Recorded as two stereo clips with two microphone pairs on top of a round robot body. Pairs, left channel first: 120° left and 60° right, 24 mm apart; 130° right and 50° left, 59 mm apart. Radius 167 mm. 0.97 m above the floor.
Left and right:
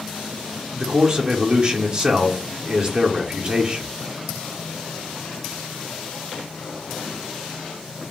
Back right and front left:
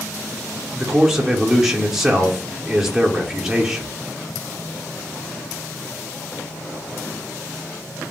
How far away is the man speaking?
About 0.8 m.